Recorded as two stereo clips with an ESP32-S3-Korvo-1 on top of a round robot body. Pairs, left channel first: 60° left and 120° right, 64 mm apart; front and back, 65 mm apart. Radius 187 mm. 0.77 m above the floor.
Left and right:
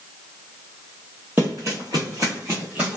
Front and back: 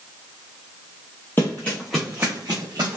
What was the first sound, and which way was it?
Running footsteps, 55° right.